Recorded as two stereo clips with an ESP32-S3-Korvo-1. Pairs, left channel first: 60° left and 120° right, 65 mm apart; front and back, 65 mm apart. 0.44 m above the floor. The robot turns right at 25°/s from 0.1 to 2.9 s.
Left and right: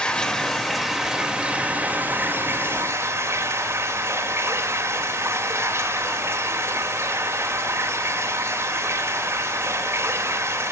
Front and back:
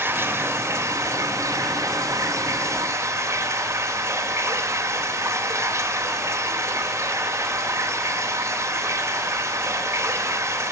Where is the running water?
135° left, 1.6 m; by 10.7 s 155° right, 1.6 m.